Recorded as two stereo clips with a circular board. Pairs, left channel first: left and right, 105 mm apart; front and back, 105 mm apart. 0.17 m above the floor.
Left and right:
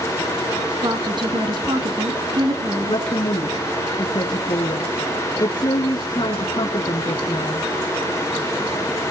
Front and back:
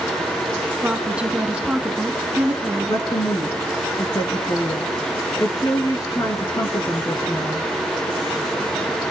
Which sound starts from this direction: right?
A woman speaking, at 0.8 s.